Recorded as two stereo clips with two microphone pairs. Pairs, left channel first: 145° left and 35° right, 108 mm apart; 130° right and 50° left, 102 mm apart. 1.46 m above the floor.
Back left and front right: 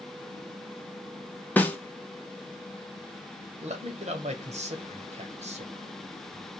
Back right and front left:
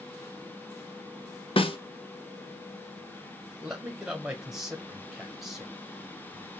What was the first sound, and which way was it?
A snare drum, 140° right.